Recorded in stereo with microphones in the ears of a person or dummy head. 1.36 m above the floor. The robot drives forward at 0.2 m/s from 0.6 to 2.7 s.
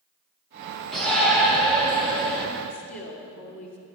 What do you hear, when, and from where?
0.9 s a shout: 5° left (ahead or behind), 1.9 m; by 2.5 s centre (ahead or behind), 2 m
2.7 s a woman speaking: 70° left (ahead or behind), 2.5 m